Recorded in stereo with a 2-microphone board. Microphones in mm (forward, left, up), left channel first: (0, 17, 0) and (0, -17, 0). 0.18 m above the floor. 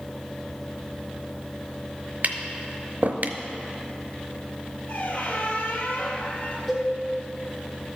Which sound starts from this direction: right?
Tapping, at 2.2 s.